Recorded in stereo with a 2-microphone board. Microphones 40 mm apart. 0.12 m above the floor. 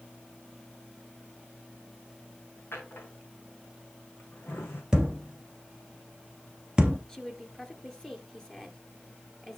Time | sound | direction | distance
2.7 | a drawer | 80° left | 3.5 m
4.9 | a thud | 15° right (ahead or behind) | 1.0 m
7.1 | a woman speaking | 10° left (ahead or behind) | 2 m